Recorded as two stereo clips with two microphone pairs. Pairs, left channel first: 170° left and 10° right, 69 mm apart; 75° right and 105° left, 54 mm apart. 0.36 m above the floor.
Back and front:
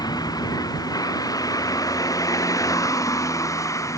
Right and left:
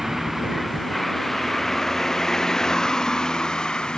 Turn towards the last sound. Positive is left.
turn(degrees=-150)